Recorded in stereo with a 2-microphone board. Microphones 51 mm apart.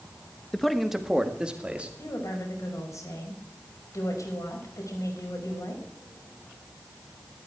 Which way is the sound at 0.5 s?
10° left (ahead or behind).